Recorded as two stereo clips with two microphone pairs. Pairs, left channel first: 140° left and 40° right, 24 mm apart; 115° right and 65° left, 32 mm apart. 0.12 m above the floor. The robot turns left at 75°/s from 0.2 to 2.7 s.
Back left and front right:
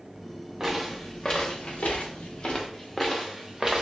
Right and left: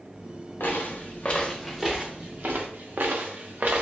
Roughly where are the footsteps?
Right.